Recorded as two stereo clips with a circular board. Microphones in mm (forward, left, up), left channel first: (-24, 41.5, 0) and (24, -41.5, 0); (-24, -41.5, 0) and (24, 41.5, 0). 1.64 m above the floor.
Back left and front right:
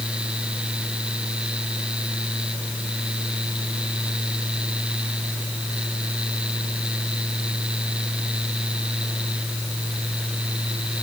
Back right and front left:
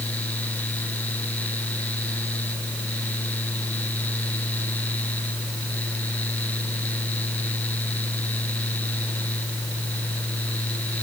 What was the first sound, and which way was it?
Only background noise.